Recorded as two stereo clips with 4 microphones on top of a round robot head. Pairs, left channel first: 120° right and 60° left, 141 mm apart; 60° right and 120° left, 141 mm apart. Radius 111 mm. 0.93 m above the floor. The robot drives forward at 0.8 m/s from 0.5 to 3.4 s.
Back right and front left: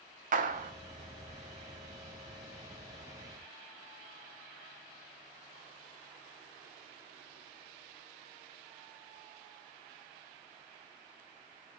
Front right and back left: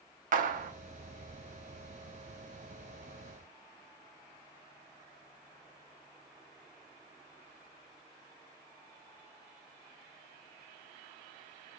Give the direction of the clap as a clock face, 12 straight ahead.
9 o'clock.